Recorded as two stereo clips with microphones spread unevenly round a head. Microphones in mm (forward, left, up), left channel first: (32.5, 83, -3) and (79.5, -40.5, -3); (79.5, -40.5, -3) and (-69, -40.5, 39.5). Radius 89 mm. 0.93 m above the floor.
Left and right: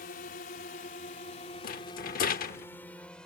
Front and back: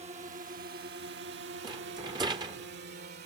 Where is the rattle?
120° left.